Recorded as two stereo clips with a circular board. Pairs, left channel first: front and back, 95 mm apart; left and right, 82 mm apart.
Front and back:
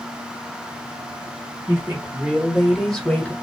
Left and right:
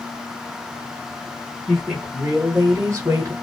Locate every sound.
1.7 s a woman speaking: straight behind, 1.1 m; by 3.3 s 65° right, 1.3 m